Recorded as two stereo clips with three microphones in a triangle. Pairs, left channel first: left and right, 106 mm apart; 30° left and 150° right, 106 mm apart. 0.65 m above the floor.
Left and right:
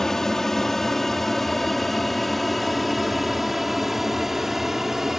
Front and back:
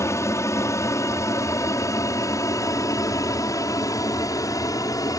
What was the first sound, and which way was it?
An aircraft, 10° left.